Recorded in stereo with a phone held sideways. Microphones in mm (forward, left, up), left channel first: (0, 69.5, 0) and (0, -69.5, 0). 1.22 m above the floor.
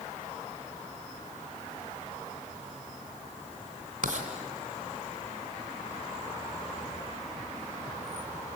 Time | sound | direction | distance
4.0 | writing | 70° right (ahead or behind) | 3 m